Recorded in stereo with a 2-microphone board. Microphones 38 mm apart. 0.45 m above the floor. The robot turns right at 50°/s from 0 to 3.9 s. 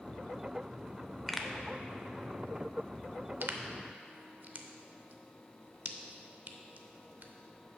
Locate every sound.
1.3 s a pop: 5° left (ahead or behind), 0.6 m; by 7.3 s 45° right (ahead or behind), 0.6 m